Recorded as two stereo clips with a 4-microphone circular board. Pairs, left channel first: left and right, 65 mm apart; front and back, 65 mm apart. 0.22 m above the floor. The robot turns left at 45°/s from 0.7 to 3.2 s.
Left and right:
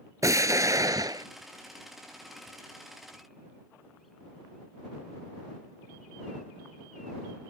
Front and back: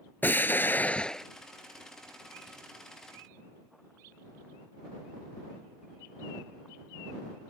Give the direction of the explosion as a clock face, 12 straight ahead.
2 o'clock.